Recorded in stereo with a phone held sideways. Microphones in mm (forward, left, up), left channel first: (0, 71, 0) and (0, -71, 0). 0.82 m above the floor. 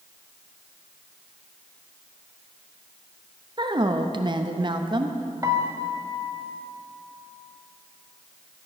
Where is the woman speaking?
35° right (ahead or behind), 0.6 m.